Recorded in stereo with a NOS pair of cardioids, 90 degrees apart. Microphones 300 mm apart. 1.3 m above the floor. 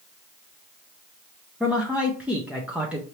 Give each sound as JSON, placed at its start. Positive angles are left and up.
{"t": 1.6, "sound": "a man speaking", "azimuth_deg": -5, "distance_m": 1.0}